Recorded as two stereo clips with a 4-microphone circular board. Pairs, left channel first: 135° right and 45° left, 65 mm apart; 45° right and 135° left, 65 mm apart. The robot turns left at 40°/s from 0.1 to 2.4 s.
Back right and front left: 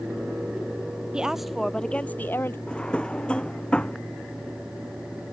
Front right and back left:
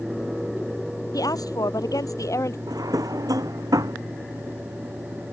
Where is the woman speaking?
30° right; by 2.6 s 80° right.